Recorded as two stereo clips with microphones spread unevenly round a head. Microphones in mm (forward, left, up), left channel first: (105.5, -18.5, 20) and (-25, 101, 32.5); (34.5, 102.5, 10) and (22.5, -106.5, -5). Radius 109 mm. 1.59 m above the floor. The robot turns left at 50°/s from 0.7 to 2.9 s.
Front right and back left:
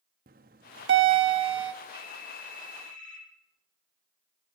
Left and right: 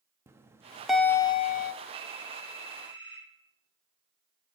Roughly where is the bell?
Behind.